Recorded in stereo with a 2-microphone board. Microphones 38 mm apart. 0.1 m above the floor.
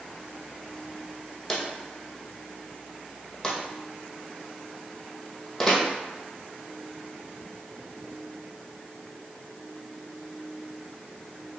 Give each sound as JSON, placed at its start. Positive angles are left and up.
{"t": 1.5, "sound": "a drawer", "side_deg": 15, "distance_m": 1.2}